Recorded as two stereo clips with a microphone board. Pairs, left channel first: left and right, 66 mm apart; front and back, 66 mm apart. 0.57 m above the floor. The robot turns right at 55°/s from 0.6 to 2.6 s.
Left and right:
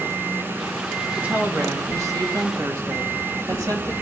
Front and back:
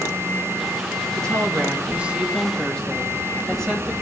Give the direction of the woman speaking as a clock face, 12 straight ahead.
5 o'clock.